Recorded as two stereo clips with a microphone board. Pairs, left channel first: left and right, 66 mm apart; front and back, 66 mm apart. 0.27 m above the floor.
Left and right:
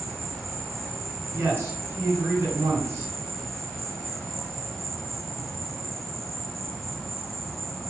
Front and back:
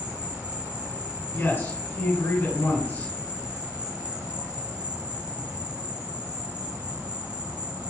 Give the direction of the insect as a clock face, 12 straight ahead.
6 o'clock.